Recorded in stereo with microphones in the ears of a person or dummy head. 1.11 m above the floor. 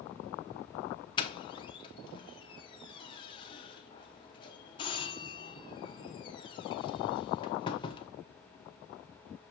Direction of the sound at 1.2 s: 30° left (ahead or behind).